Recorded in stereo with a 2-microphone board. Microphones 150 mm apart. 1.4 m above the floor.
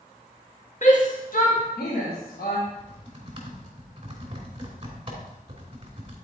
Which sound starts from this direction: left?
A shout, at 0.8 s.